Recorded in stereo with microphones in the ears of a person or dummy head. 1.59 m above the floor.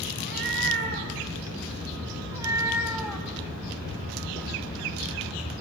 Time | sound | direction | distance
0.2 | a cat meowing | 65° right (ahead or behind) | 4.5 m